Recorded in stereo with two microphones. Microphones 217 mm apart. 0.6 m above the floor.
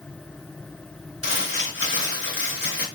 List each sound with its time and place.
1.2 s crumpling: 70° left (ahead or behind), 1.7 m